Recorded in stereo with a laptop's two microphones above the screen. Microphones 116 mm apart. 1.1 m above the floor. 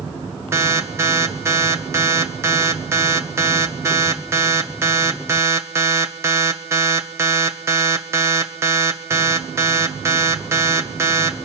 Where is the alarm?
20° right (ahead or behind), 1.0 m.